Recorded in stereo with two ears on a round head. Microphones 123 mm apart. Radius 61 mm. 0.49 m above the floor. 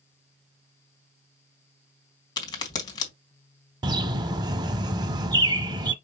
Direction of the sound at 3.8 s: 30° right (ahead or behind).